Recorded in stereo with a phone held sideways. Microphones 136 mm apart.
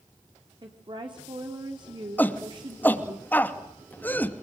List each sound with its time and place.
0.6 s a woman speaking: 40° right (ahead or behind), 3.5 m
2.2 s a shout: 15° left (ahead or behind), 2.5 m